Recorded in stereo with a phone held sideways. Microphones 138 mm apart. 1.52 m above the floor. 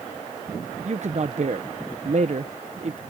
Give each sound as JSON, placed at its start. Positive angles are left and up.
{"t": 0.8, "sound": "a man speaking", "side_deg": -55}